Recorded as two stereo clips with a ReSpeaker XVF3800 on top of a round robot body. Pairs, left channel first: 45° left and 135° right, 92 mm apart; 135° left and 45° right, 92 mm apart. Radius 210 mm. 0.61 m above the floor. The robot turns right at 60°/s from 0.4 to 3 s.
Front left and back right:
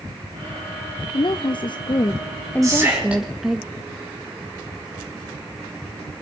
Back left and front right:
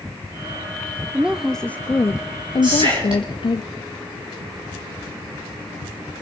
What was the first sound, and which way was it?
A woman speaking, 30° left.